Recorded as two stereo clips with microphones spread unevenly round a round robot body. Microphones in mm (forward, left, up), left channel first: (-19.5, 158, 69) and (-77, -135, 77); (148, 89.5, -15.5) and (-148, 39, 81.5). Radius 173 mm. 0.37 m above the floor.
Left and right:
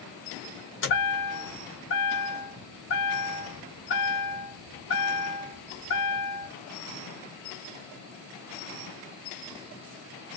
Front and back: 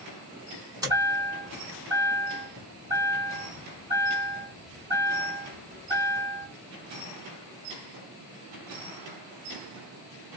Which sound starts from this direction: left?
A chime, at 0.8 s.